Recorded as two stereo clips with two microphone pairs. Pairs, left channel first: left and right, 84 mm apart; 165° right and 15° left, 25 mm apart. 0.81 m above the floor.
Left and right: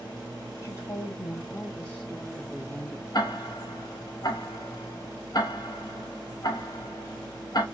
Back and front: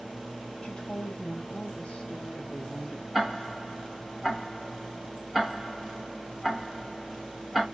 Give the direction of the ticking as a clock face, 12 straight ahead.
9 o'clock.